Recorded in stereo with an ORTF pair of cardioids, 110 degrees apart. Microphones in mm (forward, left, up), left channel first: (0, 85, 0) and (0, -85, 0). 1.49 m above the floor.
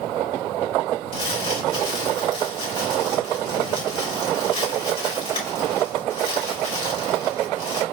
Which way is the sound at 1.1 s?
30° left.